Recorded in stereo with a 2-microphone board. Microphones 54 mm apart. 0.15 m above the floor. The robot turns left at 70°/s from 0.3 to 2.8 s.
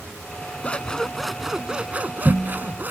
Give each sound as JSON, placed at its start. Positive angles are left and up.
{"t": 0.6, "sound": "scissors", "azimuth_deg": 45}